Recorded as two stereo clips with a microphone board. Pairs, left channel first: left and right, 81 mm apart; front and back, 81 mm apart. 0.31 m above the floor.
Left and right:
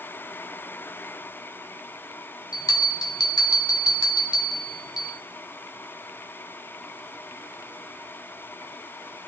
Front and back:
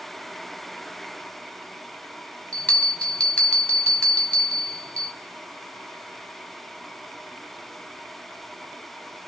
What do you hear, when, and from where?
2.5 s a bell: 75° left, 1.9 m